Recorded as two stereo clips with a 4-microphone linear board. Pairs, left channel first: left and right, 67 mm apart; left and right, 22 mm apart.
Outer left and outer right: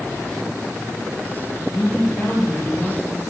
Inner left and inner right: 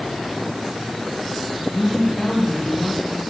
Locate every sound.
1.7 s a woman speaking: 20° left (ahead or behind), 4 m